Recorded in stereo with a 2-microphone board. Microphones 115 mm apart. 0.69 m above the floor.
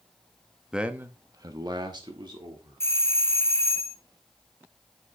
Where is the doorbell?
20° left (ahead or behind), 0.9 m.